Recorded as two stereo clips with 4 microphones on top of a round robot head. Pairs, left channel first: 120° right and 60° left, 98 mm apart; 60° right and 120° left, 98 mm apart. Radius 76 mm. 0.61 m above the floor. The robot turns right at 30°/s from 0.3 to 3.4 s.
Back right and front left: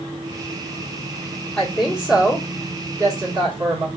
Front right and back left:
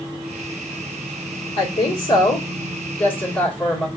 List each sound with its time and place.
1.6 s a woman speaking: 35° right, 1.7 m; by 3.9 s 20° left, 1.7 m